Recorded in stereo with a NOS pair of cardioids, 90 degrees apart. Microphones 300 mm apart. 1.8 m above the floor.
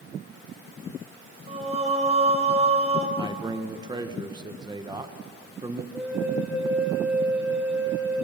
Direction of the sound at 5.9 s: 5° right.